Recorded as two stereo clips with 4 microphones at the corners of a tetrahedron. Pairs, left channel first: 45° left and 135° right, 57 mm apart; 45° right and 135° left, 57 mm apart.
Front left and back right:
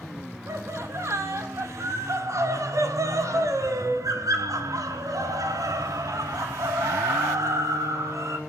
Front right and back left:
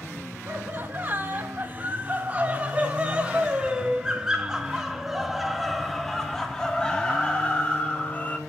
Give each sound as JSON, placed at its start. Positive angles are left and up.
{"t": 0.5, "sound": "laughter", "azimuth_deg": -170, "distance_m": 5.5}